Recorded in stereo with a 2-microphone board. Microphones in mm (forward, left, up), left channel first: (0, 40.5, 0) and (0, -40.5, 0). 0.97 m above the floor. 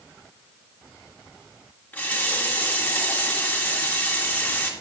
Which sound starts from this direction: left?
A running tap, at 1.9 s.